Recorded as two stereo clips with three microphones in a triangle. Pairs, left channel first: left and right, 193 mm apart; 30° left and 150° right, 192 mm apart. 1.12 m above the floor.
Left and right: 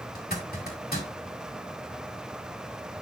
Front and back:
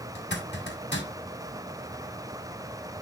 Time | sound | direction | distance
0.1 | a zipper | 55° left | 2 m